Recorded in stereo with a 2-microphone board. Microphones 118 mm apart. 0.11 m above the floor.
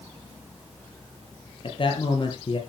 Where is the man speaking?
45° left (ahead or behind), 3 m.